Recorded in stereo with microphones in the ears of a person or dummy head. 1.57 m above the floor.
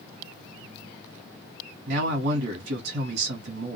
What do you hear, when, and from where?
1.9 s a man speaking: 60° right (ahead or behind), 0.9 m